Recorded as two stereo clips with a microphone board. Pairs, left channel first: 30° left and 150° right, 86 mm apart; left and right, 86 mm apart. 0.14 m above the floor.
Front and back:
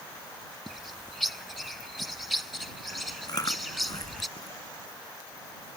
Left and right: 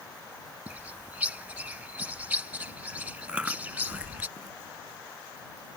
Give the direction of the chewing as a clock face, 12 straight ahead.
12 o'clock.